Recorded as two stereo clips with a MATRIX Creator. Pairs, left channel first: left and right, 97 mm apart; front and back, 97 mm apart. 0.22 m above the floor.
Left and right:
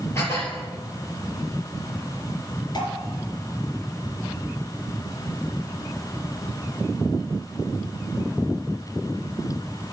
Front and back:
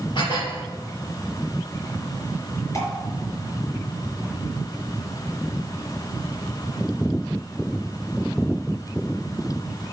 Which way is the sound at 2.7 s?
50° left.